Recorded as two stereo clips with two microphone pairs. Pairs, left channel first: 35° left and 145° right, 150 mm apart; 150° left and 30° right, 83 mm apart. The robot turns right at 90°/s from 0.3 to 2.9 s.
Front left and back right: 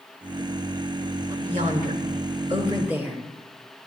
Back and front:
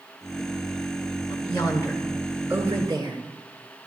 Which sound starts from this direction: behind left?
A woman speaking, at 1.3 s.